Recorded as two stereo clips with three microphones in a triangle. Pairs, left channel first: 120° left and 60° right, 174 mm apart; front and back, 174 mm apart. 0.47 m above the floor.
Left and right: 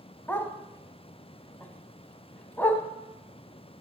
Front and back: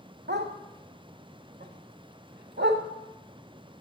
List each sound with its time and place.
0.3 s a dog barking: 160° right, 0.8 m